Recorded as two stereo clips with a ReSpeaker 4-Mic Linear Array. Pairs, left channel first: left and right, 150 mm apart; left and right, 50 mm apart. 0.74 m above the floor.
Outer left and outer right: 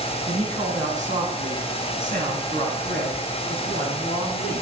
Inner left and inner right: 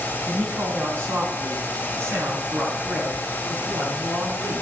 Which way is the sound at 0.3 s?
55° right (ahead or behind).